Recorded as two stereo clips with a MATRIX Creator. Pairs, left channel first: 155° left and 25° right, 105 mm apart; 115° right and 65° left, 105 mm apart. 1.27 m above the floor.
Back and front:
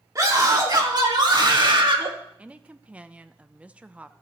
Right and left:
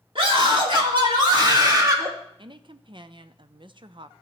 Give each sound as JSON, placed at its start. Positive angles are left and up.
{"t": 0.1, "sound": "a scream", "azimuth_deg": 35, "distance_m": 2.5}
{"t": 2.4, "sound": "a woman speaking", "azimuth_deg": 55, "distance_m": 0.5}